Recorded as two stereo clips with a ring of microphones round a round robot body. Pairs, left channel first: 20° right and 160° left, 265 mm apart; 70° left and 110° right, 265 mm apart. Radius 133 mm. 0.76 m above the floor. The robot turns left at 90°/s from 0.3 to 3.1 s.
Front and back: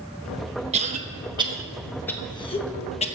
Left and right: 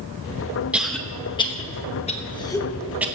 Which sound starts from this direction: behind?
A cough, at 0.7 s.